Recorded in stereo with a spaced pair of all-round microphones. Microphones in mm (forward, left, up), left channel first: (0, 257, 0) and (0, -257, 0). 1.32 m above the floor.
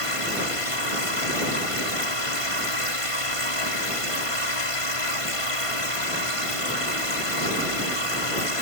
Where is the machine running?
70° left (ahead or behind).